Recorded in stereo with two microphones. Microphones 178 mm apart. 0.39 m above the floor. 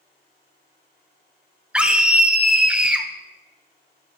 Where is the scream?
5° right (ahead or behind), 0.8 m.